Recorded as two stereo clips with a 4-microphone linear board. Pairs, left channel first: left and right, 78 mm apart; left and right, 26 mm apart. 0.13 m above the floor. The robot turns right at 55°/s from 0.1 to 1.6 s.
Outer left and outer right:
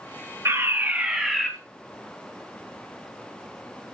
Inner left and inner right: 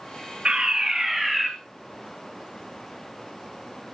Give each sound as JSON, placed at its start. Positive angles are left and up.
{"t": 0.5, "sound": "a fire alarm", "azimuth_deg": -50, "distance_m": 3.5}